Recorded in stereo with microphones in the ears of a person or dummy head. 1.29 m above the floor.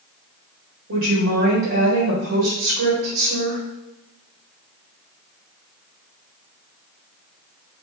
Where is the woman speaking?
75° right (ahead or behind), 1.3 m.